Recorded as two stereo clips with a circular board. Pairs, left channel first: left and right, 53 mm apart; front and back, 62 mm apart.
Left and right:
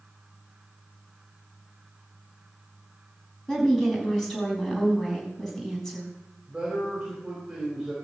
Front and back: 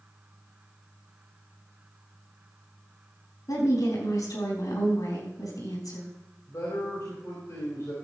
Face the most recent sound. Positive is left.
turn(degrees=-10)